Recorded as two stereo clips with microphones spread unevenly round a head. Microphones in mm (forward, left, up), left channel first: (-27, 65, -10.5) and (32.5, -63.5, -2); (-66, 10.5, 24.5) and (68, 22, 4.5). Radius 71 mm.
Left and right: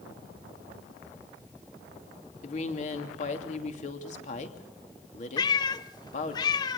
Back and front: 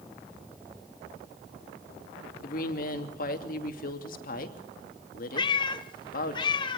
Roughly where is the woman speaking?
Behind.